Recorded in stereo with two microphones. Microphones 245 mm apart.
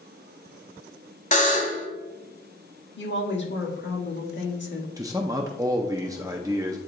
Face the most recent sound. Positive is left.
turn(degrees=-15)  # may be behind; listen again after turning